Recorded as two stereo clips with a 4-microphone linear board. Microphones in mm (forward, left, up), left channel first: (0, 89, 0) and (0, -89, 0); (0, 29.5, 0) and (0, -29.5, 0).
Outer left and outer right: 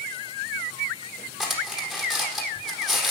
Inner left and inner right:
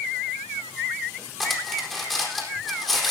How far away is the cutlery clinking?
About 4 m.